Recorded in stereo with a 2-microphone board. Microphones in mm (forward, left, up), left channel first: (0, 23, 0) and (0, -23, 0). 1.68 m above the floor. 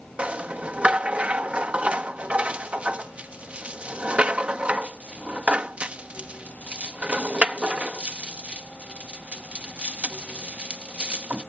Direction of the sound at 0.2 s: 30° right (ahead or behind).